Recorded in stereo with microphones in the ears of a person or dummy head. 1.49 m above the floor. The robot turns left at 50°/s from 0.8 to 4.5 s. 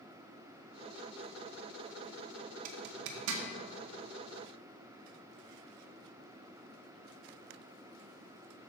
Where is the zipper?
50° right (ahead or behind), 1.0 m; by 3.4 s 85° right, 1.0 m.